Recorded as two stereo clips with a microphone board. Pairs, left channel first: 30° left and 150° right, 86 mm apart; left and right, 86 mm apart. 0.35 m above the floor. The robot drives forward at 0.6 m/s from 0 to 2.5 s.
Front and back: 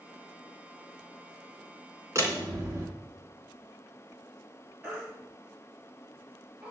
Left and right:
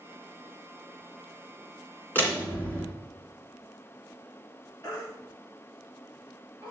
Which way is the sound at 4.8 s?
135° left.